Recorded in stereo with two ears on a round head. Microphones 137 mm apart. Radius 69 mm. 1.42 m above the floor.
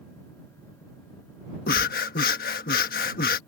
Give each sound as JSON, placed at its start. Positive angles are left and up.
{"t": 1.7, "sound": "breathing", "side_deg": 65}